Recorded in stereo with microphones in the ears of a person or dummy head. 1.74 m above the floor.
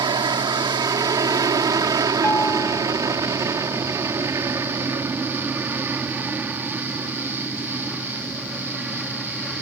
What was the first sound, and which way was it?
An aircraft, 20° right (ahead or behind).